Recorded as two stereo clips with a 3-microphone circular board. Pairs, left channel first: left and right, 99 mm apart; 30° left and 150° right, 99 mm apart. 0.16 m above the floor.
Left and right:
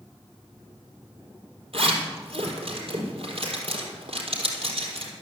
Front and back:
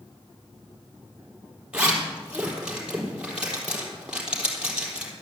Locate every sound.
1.7 s a zipper: 70° right, 4 m